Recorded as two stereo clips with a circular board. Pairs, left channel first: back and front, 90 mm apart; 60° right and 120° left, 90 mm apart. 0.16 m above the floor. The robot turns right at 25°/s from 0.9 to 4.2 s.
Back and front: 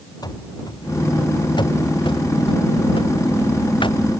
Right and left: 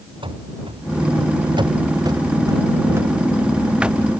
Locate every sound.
0.2 s running footsteps: 140° left; by 4.0 s 155° right